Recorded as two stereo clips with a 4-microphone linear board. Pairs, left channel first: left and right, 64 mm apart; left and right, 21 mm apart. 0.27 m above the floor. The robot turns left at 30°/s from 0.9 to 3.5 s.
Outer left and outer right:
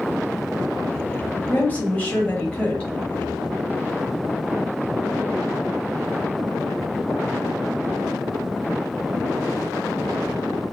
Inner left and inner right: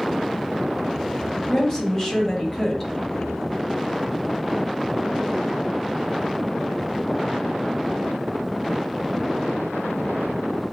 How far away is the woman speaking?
About 1.0 m.